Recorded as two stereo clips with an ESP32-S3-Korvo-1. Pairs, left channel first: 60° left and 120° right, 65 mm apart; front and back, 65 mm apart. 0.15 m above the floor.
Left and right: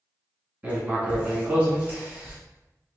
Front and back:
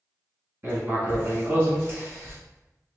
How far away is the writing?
About 1.3 m.